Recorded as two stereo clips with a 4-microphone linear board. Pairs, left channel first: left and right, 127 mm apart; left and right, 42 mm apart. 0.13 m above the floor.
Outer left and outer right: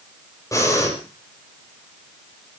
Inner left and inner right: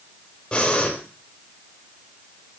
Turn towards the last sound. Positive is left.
turn(degrees=25)  # may be behind; listen again after turning